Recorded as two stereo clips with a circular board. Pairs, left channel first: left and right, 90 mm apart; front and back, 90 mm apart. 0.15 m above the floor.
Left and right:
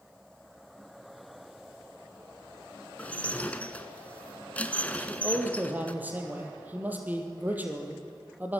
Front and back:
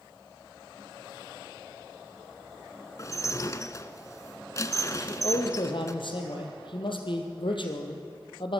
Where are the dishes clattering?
25° left, 1.2 m.